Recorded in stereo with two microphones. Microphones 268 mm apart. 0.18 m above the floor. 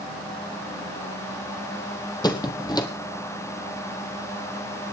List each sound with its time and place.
2.2 s a squeak: 15° left (ahead or behind), 1.5 m